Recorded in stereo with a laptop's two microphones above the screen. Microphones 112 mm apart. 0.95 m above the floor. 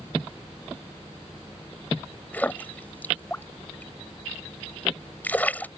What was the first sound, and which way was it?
A splash, 15° left (ahead or behind).